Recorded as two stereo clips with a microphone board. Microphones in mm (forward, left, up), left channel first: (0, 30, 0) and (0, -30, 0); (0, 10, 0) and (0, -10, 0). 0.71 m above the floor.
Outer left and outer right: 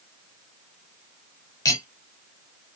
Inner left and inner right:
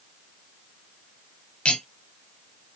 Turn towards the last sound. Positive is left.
turn(degrees=75)  # may be behind; listen again after turning